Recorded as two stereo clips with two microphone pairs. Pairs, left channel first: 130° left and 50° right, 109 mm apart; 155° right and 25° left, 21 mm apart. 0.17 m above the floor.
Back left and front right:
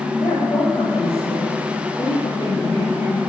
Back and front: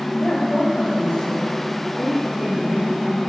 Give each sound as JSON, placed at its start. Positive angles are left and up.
{"t": 0.2, "sound": "a woman speaking", "azimuth_deg": 165, "distance_m": 8.0}